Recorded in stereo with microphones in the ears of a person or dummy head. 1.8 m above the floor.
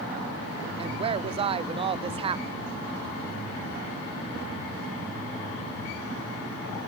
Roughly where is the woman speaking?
Right.